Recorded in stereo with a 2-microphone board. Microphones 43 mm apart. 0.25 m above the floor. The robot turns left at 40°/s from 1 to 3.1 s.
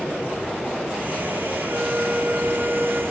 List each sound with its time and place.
1.7 s a flute: 95° right, 2 m; by 3.0 s 150° right, 2 m